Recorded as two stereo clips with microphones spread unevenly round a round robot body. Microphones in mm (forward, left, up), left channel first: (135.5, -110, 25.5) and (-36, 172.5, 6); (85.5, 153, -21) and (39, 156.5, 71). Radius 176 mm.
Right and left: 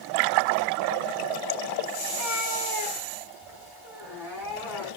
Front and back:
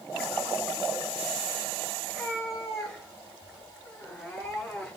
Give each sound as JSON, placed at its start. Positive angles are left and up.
{"t": 2.0, "sound": "a cat meowing", "azimuth_deg": -165, "distance_m": 8.5}